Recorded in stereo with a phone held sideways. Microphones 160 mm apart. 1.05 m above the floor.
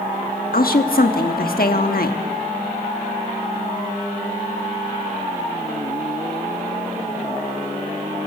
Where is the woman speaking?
75° left (ahead or behind), 1.4 m.